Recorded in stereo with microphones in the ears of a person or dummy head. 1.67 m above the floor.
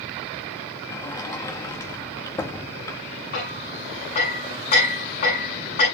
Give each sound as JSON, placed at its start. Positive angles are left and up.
{"t": 0.9, "sound": "a sliding door", "side_deg": 15, "distance_m": 1.2}
{"t": 3.3, "sound": "hammering", "side_deg": 50, "distance_m": 9.5}